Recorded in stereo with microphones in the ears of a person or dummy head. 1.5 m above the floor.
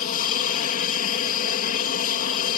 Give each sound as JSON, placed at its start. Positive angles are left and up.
{"t": 0.0, "sound": "an aircraft", "side_deg": 50}